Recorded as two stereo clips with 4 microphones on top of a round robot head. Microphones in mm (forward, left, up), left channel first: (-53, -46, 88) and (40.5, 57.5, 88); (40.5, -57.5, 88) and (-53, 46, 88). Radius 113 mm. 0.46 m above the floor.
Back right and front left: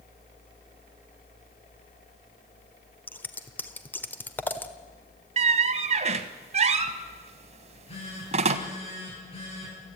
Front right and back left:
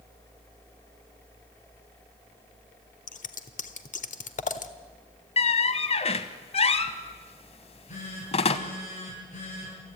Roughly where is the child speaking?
I don't hear a child speaking.